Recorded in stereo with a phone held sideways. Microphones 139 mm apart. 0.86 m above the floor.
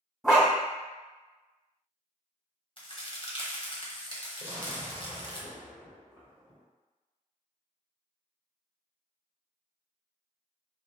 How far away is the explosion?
About 1.4 m.